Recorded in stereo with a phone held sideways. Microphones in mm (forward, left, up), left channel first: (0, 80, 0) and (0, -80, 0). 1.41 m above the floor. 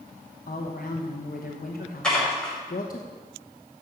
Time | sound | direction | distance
0.5 | a woman speaking | 60° left (ahead or behind) | 1.0 m
2.0 | dishes clattering | 5° left (ahead or behind) | 5 m